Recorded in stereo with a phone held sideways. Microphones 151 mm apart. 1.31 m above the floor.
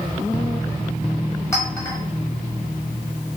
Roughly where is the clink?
Centre.